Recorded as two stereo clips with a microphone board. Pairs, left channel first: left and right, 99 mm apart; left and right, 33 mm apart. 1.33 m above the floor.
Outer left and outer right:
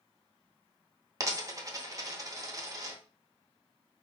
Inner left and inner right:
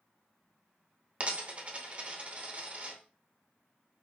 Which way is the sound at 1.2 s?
35° right (ahead or behind).